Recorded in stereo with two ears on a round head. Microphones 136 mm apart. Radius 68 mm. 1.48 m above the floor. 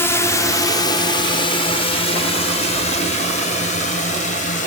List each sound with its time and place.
0.0 s a drone: 15° left (ahead or behind); by 4.7 s 50° left (ahead or behind)